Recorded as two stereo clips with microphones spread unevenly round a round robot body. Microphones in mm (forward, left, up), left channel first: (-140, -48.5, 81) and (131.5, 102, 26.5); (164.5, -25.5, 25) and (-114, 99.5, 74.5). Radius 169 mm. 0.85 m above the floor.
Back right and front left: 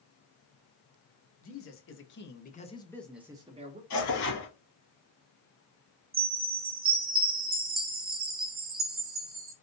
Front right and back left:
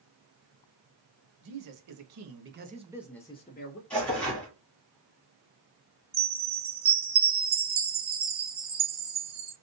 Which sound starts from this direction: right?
Tearing paper, at 3.9 s.